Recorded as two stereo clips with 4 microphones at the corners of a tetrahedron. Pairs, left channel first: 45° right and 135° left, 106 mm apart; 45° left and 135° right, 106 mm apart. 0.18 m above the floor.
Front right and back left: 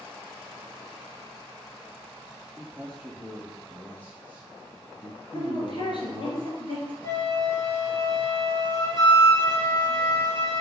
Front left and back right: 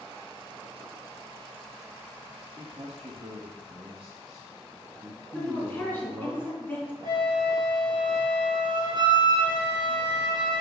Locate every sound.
2.6 s a man speaking: 130° right, 2.5 m; by 6.3 s 50° right, 2.0 m
5.3 s a woman speaking: 20° right, 2.5 m
7.0 s a flute: 100° right, 3 m